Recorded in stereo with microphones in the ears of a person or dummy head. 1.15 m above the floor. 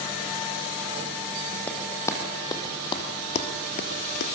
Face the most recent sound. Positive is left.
turn(degrees=50)  # may be behind; listen again after turning